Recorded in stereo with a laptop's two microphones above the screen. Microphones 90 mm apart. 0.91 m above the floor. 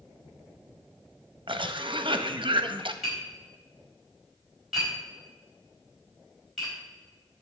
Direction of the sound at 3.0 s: 5° right (ahead or behind).